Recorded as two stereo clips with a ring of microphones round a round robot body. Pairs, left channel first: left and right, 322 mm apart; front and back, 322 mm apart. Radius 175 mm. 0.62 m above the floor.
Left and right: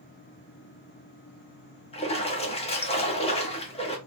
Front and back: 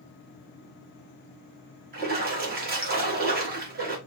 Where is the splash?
145° left, 0.9 m.